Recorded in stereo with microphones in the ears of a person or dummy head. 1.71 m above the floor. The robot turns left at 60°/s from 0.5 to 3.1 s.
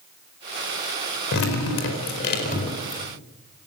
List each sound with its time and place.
1.3 s dripping: 115° left, 4.5 m; by 3.0 s 15° left, 4.5 m